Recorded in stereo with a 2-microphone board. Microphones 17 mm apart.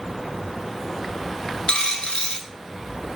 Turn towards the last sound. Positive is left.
turn(degrees=70)  # may be behind; listen again after turning